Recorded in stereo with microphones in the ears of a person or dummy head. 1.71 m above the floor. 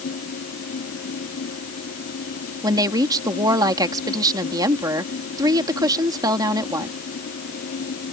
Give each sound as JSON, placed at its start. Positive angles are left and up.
{"t": 0.0, "sound": "a fan", "side_deg": 50}
{"t": 2.6, "sound": "a woman speaking", "side_deg": -20}